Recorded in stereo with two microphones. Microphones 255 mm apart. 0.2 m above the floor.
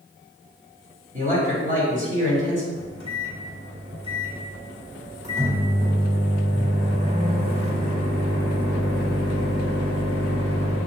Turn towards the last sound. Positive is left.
turn(degrees=-25)  # may be behind; listen again after turning